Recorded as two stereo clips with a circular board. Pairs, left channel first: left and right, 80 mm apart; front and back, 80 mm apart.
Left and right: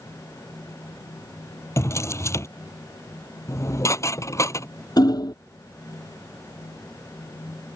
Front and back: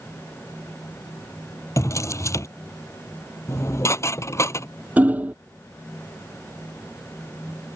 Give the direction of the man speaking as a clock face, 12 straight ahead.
I don't hear a man speaking.